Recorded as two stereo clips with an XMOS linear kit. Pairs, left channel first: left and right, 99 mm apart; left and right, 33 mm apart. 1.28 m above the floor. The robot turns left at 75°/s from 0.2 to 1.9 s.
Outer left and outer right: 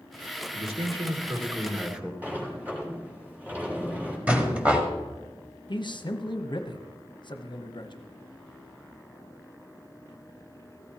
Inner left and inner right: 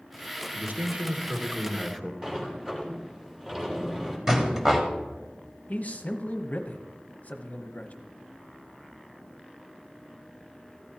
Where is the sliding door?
15° right (ahead or behind), 2.5 m.